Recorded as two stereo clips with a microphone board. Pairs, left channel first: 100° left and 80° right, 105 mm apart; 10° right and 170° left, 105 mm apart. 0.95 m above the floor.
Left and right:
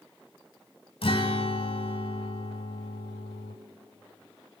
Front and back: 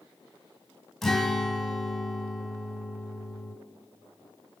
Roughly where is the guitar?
Left.